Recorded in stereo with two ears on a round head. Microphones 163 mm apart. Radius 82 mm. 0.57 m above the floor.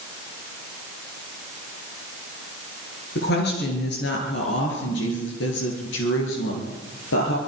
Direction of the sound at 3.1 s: 60° left (ahead or behind).